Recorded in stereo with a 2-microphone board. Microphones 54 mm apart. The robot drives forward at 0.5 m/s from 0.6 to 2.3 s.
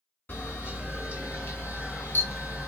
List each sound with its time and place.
0.3 s a camera shutter: 40° left (ahead or behind), 2 m; by 2.7 s 45° left (ahead or behind), 2 m